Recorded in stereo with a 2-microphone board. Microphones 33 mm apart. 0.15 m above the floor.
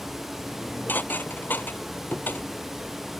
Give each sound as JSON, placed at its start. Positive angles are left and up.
{"t": 0.5, "sound": "dishes clattering", "side_deg": 70}